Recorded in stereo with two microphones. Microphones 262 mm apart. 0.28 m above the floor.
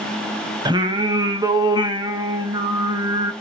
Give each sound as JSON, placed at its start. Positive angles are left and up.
{"t": 0.7, "sound": "singing", "side_deg": -15, "distance_m": 0.5}